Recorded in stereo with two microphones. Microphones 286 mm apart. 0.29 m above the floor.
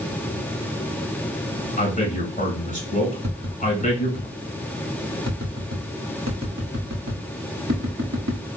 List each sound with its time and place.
1.8 s a man speaking: 25° left (ahead or behind), 1.7 m
3.2 s tapping: 65° right (ahead or behind), 1.1 m